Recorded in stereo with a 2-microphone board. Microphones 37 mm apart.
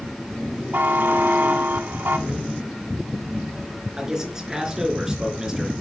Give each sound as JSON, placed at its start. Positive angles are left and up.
{"t": 0.7, "sound": "a buzzer", "side_deg": -65, "distance_m": 0.9}
{"t": 2.3, "sound": "a thud", "side_deg": -35, "distance_m": 1.8}
{"t": 4.0, "sound": "a man speaking", "side_deg": -15, "distance_m": 3.5}